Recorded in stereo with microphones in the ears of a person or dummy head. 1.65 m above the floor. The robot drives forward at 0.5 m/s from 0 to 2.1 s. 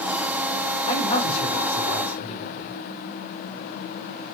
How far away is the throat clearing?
No throat clearing in this recording.